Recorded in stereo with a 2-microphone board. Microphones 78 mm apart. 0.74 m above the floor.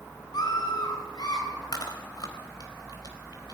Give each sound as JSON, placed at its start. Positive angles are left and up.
{"t": 0.3, "sound": "a scream", "side_deg": 55, "distance_m": 9.5}
{"t": 1.7, "sound": "chewing", "side_deg": 60, "distance_m": 4.0}